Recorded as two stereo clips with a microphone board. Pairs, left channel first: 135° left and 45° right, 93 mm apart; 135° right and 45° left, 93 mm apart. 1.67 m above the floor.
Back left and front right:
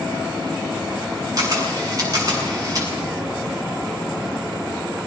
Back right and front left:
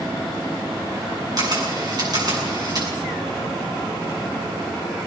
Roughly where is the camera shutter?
Ahead.